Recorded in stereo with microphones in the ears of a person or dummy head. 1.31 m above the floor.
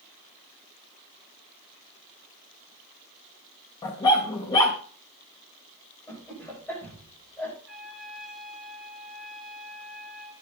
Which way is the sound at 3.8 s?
20° left (ahead or behind).